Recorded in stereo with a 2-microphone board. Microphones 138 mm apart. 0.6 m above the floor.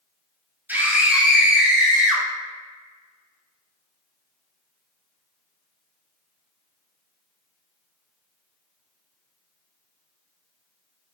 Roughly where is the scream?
Centre.